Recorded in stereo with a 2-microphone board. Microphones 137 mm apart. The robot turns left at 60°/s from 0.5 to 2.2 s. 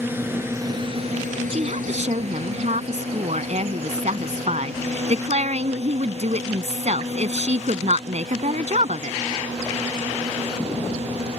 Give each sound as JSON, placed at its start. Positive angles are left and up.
{"t": 0.0, "sound": "a drone", "side_deg": -15}
{"t": 1.5, "sound": "a woman speaking", "azimuth_deg": -60}